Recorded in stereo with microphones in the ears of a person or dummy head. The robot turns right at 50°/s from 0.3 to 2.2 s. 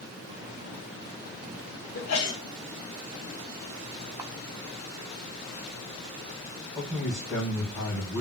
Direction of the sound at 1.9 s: 90° left.